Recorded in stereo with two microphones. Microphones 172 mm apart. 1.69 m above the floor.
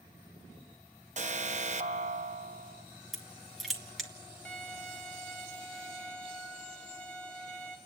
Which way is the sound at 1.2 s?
50° right (ahead or behind).